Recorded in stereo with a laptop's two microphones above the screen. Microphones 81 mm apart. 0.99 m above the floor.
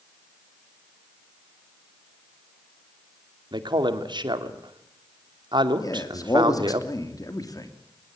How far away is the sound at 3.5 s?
About 2.5 m.